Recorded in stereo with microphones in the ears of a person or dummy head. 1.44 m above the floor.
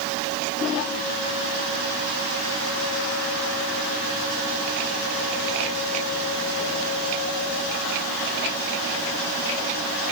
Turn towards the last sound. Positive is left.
No sound to turn to.